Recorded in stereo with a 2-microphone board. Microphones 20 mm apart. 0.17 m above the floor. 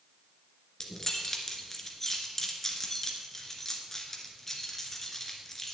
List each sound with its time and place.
0.8 s keys jangling: 20° left (ahead or behind), 1.9 m